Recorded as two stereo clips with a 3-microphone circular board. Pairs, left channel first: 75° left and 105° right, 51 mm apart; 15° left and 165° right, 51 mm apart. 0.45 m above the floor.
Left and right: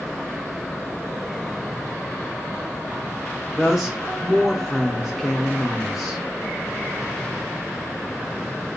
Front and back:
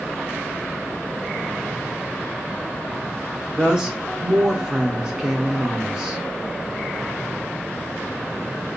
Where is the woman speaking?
175° left, 0.7 m.